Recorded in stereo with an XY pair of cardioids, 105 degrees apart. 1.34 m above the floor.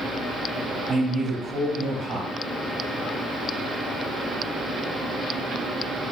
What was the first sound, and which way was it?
A man speaking, 35° right.